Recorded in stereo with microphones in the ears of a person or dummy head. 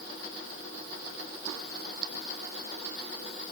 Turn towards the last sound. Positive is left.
No sound to turn to.